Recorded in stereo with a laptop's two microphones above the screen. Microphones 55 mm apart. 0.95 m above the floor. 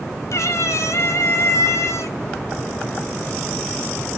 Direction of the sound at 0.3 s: 65° left (ahead or behind).